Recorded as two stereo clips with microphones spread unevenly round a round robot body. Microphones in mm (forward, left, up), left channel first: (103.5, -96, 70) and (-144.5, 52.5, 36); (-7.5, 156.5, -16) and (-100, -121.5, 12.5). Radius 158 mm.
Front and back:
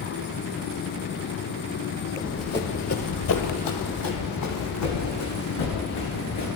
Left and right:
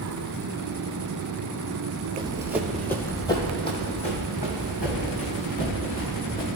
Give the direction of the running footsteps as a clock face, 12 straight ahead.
5 o'clock.